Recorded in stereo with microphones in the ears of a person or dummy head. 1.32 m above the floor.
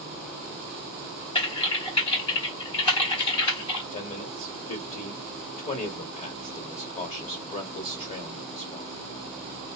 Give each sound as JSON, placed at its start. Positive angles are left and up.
{"t": 1.4, "sound": "typing on a keyboard", "side_deg": 30, "distance_m": 3.0}
{"t": 3.9, "sound": "a man speaking", "side_deg": 35, "distance_m": 1.0}